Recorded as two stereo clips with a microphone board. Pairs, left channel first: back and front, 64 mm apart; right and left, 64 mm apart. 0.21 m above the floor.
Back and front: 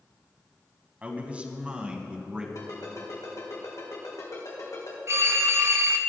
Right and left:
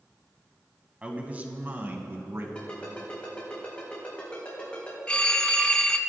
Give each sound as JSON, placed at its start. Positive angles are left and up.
{"t": 1.0, "sound": "a man speaking", "azimuth_deg": 40, "distance_m": 1.5}
{"t": 2.5, "sound": "a ringtone", "azimuth_deg": -160, "distance_m": 5.5}
{"t": 5.1, "sound": "a phone ringing", "azimuth_deg": -20, "distance_m": 0.9}